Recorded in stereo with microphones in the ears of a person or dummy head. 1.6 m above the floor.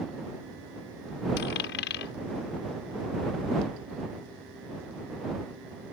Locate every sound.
1.4 s a dropped coin: 55° left (ahead or behind)